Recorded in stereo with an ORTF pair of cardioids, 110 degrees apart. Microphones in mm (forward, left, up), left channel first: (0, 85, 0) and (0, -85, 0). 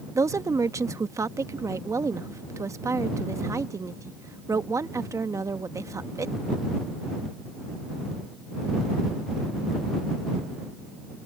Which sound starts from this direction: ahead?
A woman speaking, at 0.1 s.